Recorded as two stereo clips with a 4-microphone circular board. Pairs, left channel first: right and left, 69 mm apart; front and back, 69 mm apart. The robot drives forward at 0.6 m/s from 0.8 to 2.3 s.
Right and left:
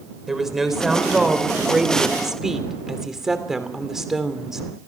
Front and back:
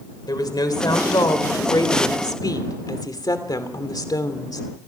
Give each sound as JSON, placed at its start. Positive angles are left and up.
{"t": 0.3, "sound": "a woman speaking", "azimuth_deg": 5, "distance_m": 3.5}